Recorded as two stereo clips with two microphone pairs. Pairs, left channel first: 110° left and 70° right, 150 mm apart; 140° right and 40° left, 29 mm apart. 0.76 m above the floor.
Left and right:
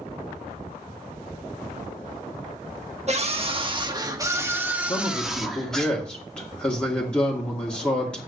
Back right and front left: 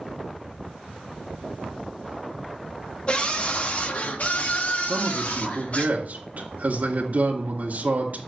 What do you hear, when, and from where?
3.1 s a scream: 95° right, 1.4 m; by 5.9 s 165° right, 2 m
4.9 s a man speaking: 25° left, 2 m